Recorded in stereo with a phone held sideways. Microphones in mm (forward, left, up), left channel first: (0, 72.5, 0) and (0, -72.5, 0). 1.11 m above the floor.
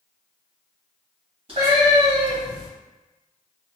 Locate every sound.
1.5 s a cat meowing: 40° right (ahead or behind), 1.8 m; by 2.7 s 45° right (ahead or behind), 2.5 m